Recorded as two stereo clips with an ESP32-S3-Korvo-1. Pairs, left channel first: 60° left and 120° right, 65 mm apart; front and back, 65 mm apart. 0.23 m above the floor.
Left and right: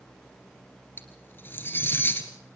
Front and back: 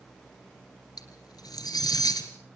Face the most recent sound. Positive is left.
turn(degrees=5)